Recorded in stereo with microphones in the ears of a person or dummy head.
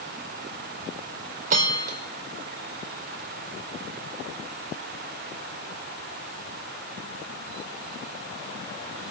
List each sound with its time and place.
1.5 s a bell: 45° right (ahead or behind), 1.7 m